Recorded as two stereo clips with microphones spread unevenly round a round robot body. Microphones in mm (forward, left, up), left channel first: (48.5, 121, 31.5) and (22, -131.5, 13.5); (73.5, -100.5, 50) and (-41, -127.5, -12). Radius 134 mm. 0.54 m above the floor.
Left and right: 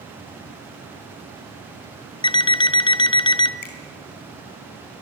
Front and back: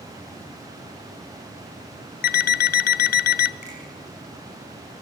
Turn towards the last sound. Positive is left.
turn(degrees=80)